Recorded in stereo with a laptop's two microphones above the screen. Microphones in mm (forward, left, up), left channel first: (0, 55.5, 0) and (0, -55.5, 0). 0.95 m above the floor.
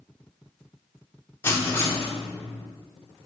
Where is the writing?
20° left (ahead or behind), 0.7 m.